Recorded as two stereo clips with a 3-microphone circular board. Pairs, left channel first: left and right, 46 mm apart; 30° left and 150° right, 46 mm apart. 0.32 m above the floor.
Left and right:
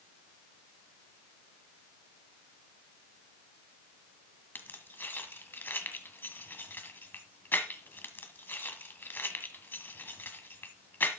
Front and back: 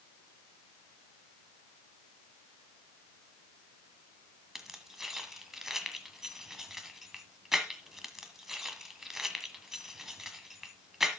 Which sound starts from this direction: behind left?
Keys jangling, at 4.5 s.